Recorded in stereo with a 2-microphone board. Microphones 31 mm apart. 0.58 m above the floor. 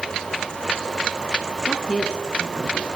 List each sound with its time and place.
1.7 s a woman speaking: 35° left (ahead or behind), 5 m; by 2.9 s 40° left (ahead or behind), 5 m